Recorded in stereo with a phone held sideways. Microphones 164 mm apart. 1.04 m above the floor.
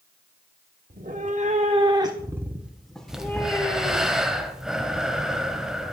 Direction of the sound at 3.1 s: 5° right (ahead or behind).